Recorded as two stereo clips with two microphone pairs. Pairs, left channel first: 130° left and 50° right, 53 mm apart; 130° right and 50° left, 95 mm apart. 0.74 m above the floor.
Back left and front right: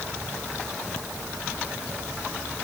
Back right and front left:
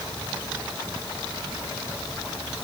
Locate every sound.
Only background noise.